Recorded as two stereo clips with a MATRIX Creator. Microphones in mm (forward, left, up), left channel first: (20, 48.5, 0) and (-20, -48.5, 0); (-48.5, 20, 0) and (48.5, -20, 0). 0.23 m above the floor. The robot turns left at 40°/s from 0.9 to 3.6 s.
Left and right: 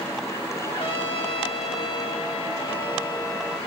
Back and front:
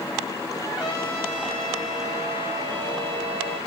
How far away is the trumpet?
About 7 m.